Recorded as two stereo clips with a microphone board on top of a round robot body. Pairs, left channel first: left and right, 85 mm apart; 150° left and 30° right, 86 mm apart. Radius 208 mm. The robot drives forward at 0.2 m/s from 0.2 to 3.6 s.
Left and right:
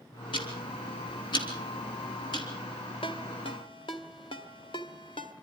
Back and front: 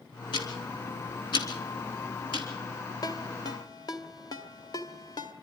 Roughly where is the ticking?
Behind left.